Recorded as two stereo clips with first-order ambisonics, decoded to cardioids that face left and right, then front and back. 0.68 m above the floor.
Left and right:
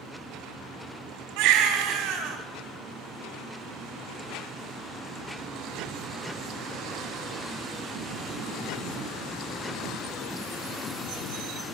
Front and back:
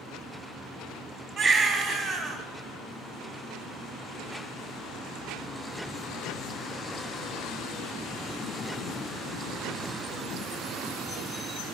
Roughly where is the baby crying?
Behind right.